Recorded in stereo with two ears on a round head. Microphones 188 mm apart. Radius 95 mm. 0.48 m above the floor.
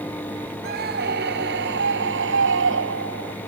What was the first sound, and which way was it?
A scream, 45° right (ahead or behind).